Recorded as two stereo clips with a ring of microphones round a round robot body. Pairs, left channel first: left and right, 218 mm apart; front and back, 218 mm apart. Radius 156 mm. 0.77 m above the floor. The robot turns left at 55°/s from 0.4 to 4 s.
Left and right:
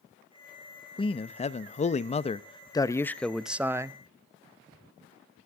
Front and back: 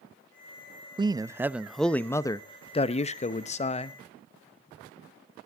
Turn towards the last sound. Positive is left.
turn(degrees=-35)